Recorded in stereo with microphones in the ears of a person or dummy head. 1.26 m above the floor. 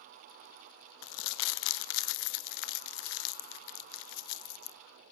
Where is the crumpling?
75° left (ahead or behind), 0.6 m.